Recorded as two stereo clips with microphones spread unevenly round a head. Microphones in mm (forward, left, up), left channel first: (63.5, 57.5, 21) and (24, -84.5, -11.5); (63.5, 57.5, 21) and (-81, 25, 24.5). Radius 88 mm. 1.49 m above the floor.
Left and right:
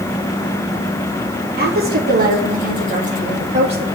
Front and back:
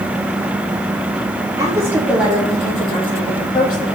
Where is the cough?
I don't hear a cough.